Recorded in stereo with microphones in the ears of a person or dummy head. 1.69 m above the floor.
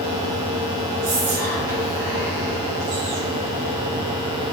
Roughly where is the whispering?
Right.